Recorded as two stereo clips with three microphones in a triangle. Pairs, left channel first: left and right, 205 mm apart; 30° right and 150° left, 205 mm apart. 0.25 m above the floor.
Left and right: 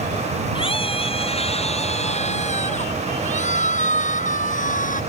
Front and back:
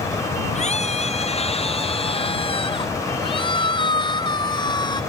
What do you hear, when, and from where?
0.6 s a scream: 25° left; by 5.0 s 40° left